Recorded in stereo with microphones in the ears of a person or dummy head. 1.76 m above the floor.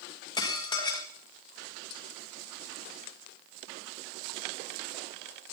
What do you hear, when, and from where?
0.4 s dishes clattering: 25° left (ahead or behind), 1.8 m